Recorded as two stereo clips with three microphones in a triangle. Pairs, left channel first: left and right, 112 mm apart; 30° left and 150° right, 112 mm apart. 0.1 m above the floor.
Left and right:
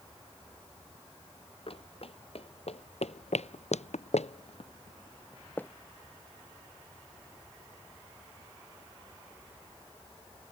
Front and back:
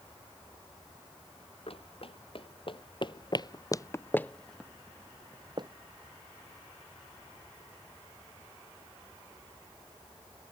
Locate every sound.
1.7 s running footsteps: 60° left; by 5.7 s 165° left